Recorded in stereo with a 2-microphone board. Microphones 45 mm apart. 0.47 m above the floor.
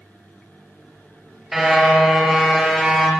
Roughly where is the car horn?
Centre.